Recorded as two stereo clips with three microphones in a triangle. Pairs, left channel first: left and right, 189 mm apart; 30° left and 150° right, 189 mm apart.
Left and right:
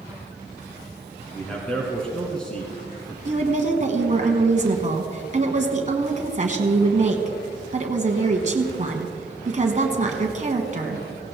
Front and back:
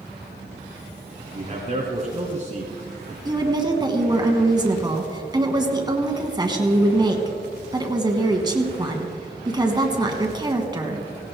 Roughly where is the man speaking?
Behind.